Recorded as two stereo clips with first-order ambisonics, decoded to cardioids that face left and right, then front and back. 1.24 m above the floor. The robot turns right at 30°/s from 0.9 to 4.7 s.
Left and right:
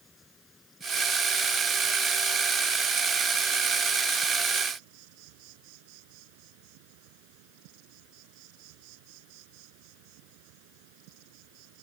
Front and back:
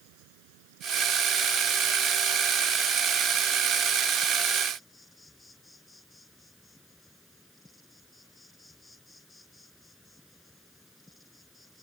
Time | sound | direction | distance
0.0 | an insect | 165° left | ?